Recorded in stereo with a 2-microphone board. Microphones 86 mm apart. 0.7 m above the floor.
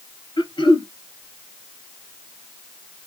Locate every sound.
0.4 s throat clearing: 70° left (ahead or behind), 1.8 m